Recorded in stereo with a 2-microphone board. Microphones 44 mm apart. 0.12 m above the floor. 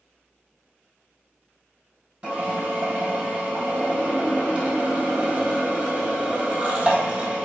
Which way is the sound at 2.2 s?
30° right (ahead or behind).